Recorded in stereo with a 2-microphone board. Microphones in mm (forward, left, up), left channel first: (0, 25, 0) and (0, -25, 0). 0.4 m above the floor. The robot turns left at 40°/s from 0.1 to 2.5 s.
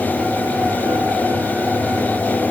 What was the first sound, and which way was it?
Only background noise.